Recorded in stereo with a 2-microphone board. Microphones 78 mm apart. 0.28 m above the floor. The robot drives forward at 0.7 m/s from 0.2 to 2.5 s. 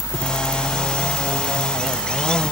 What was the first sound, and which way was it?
Only background noise.